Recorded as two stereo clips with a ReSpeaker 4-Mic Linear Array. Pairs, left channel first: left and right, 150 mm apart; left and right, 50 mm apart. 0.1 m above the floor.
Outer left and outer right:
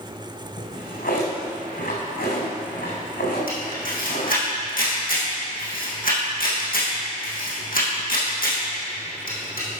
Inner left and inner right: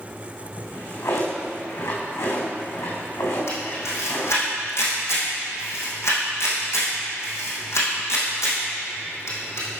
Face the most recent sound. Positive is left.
turn(degrees=70)  # may be behind; listen again after turning